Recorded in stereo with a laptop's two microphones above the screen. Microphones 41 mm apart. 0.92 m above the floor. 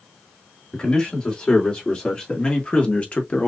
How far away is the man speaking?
About 3 m.